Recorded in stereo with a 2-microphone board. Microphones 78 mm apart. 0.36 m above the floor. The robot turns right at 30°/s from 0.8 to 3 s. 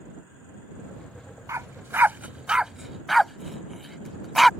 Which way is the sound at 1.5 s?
40° right (ahead or behind).